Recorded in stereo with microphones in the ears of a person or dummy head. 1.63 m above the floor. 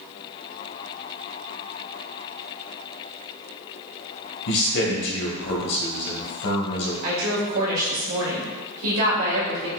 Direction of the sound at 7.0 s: 70° right (ahead or behind).